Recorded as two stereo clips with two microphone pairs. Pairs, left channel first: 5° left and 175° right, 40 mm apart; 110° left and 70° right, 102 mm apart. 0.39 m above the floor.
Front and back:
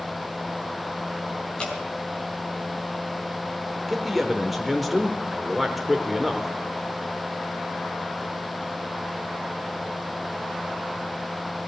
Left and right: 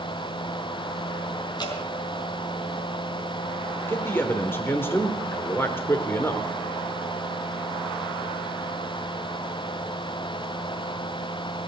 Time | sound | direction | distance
1.6 | dripping | 70° left | 3.5 m
3.9 | a man speaking | 105° left | 1.0 m